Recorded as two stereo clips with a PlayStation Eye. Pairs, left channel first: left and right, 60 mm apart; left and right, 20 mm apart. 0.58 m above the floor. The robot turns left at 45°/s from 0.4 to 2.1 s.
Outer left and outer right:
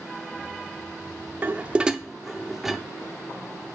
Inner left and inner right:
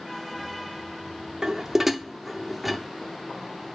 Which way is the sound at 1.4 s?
30° right (ahead or behind).